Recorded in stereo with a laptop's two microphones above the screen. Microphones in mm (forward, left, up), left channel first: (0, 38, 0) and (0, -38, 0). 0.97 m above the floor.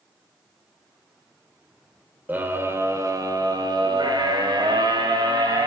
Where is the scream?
25° right (ahead or behind), 3 m; by 5.7 s 75° right (ahead or behind), 5 m.